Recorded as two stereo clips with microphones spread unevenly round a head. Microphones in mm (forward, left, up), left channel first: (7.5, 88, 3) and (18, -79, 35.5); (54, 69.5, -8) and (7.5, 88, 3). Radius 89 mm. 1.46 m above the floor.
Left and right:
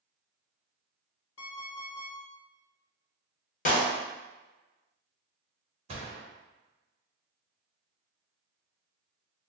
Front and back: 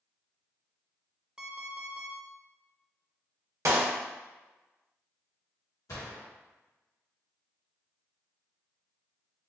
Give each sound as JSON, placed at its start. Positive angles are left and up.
{"t": 1.4, "sound": "an alarm clock", "azimuth_deg": 95, "distance_m": 1.2}
{"t": 3.6, "sound": "a clap", "azimuth_deg": 145, "distance_m": 0.9}
{"t": 5.9, "sound": "a gunshot", "azimuth_deg": -40, "distance_m": 1.6}